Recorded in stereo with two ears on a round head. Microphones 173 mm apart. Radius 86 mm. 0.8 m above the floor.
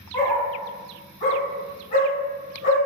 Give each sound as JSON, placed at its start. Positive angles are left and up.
{"t": 0.1, "sound": "a dog barking", "side_deg": 10, "distance_m": 1.3}